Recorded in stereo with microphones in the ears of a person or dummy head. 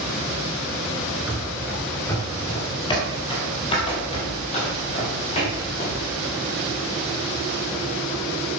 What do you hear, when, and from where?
1.3 s running footsteps: 5° right (ahead or behind), 1.2 m; by 6.0 s 35° left (ahead or behind), 4 m